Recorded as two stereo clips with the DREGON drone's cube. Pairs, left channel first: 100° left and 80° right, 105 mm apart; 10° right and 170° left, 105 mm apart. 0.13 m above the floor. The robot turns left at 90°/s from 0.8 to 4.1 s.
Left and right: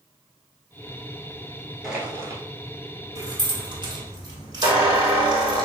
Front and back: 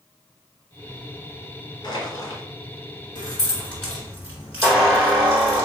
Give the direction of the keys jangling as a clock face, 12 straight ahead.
1 o'clock.